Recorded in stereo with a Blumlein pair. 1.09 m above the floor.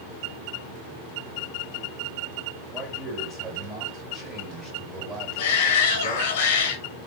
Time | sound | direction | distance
2.7 | a man speaking | 10° right | 1.8 m
5.4 | a shout | 45° left | 1.0 m